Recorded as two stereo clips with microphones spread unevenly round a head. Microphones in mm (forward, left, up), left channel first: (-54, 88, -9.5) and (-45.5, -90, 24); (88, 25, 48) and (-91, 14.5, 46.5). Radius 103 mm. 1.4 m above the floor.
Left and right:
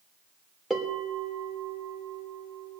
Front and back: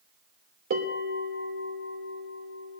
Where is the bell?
Straight behind, 3 m.